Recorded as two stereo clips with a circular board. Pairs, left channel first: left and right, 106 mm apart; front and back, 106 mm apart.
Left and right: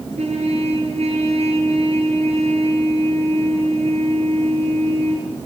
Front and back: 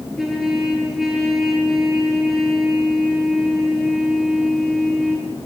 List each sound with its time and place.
0.2 s a trumpet: 90° right, 7 m